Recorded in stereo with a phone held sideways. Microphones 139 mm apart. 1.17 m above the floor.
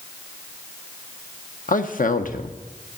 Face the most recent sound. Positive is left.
turn(degrees=80)